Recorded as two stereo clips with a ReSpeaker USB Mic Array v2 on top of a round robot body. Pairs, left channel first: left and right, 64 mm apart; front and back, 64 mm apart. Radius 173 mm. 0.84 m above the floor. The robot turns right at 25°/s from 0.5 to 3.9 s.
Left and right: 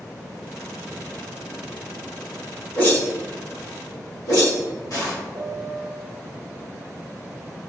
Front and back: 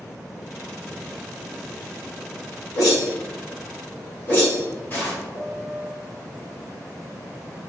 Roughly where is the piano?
Ahead left.